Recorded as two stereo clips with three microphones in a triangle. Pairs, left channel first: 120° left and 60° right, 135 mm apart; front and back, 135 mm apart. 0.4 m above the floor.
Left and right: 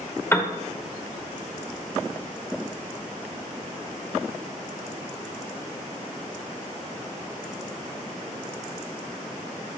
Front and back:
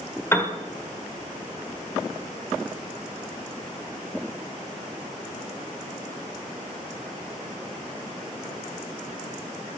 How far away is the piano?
About 1.1 m.